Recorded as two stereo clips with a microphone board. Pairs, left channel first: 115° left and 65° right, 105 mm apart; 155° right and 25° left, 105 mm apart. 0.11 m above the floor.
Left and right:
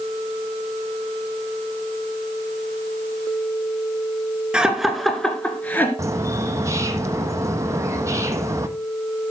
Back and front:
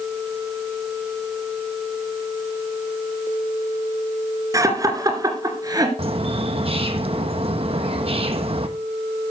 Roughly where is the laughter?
Ahead.